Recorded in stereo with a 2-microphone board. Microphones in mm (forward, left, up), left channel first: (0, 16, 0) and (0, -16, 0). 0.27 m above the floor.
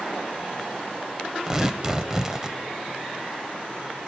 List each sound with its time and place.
1.5 s tearing paper: 20° right (ahead or behind), 0.8 m